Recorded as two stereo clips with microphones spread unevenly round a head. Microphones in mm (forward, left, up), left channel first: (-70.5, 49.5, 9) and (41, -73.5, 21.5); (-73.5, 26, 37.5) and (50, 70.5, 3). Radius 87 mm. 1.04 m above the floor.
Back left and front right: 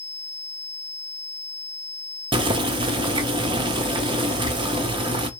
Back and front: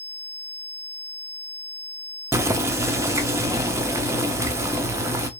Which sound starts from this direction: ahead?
Boiling, at 2.3 s.